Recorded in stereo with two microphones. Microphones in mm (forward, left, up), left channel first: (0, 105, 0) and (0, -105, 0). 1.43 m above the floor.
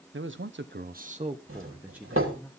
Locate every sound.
0.1 s a man speaking: 70° right (ahead or behind), 1.0 m; by 2.5 s 5° left (ahead or behind), 1.6 m
1.5 s a doorbell: 80° right, 3 m